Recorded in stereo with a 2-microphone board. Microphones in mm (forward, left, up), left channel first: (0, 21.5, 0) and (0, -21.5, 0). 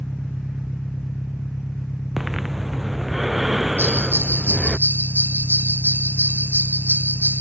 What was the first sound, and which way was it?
An engine running, 65° left (ahead or behind).